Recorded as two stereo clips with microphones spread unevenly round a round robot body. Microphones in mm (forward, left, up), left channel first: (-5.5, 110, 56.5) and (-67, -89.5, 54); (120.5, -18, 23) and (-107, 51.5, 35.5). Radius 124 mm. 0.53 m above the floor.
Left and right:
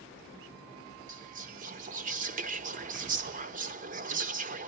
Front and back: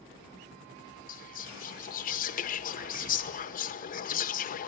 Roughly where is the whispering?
Ahead right.